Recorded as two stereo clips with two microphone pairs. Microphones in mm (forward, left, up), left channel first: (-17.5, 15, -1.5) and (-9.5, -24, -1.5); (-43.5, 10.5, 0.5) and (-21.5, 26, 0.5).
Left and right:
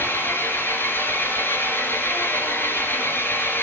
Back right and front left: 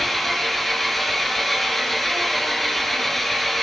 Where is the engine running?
125° left, 4 m.